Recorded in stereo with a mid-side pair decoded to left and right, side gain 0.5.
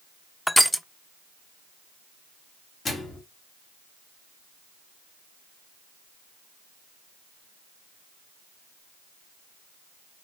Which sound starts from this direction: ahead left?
A microwave, at 2.9 s.